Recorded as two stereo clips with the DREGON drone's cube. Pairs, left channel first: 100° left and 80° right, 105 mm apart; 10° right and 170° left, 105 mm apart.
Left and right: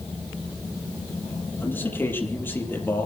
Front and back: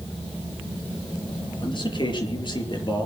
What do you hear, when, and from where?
1.6 s a man speaking: 30° left, 5.5 m